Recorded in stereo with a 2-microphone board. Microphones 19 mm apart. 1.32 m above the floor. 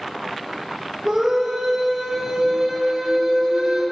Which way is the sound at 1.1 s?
35° right (ahead or behind).